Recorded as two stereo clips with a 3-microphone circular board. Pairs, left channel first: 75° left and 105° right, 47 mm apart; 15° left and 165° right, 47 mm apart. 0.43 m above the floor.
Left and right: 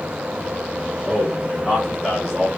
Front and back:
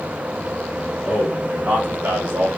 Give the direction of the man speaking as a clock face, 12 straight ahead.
7 o'clock.